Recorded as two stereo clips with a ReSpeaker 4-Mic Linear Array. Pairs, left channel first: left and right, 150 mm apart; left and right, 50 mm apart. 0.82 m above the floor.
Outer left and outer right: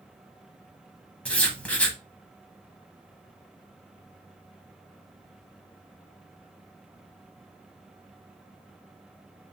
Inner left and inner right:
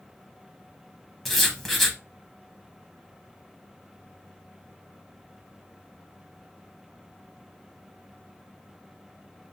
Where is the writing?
10° left (ahead or behind), 0.7 m.